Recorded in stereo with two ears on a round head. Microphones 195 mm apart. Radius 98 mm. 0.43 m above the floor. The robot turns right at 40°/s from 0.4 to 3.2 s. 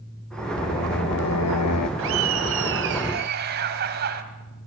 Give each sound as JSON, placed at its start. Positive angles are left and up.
{"t": 0.6, "sound": "singing", "azimuth_deg": 35, "distance_m": 0.9}
{"t": 2.0, "sound": "laughter", "azimuth_deg": -100, "distance_m": 2.5}